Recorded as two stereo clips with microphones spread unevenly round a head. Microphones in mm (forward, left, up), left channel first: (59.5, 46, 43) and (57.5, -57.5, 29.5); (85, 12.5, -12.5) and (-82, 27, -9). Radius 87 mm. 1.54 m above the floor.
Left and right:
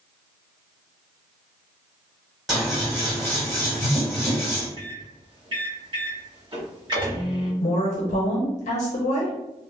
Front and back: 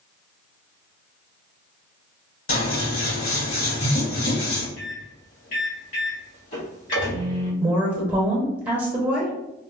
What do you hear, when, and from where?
2.5 s scissors: 5° left, 1.9 m
4.8 s a microwave: 50° right, 1.7 m
7.6 s a woman speaking: 105° left, 0.8 m